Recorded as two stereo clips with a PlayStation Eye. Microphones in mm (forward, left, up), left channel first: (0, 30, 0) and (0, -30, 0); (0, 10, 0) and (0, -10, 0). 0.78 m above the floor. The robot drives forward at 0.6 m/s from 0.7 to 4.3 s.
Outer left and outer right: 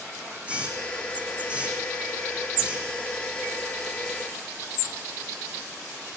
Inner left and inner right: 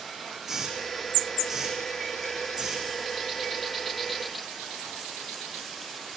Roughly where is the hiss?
Centre.